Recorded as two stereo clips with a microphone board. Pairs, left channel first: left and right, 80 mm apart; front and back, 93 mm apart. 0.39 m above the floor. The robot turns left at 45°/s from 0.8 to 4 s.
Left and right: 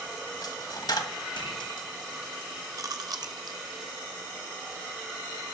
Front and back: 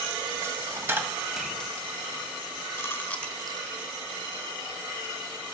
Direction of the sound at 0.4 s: 120° left.